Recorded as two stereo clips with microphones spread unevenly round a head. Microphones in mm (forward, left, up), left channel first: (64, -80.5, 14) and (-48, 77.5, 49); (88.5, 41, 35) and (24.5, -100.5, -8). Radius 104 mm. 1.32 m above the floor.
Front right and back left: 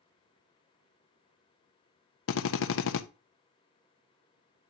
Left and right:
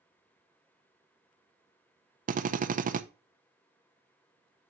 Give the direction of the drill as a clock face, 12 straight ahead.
3 o'clock.